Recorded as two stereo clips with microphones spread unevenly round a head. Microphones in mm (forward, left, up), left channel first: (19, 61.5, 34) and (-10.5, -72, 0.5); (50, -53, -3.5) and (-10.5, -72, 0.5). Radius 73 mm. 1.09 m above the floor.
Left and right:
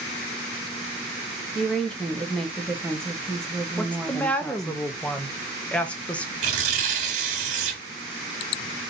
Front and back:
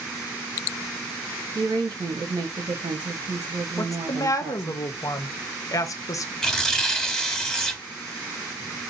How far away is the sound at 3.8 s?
About 0.7 m.